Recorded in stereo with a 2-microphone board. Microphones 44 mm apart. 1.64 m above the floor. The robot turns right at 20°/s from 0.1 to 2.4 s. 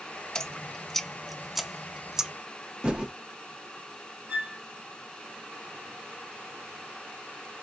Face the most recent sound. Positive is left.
turn(degrees=-30)  # may be behind; listen again after turning